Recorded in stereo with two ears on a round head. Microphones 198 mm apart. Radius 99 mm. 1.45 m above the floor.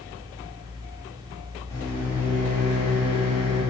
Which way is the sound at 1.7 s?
15° left (ahead or behind).